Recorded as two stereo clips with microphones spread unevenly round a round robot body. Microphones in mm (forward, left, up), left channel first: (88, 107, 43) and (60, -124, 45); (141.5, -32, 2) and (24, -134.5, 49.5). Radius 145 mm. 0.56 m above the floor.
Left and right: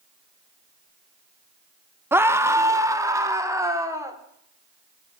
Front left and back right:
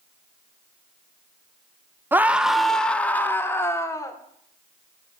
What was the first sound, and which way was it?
A scream, 35° right.